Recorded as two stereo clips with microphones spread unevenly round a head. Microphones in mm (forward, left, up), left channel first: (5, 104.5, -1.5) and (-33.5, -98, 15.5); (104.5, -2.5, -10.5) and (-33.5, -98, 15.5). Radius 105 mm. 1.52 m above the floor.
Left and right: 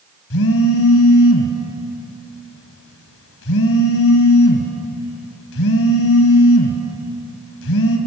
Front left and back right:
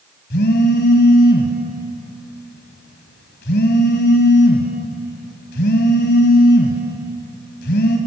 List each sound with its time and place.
0.3 s a phone buzzing: 70° left, 2 m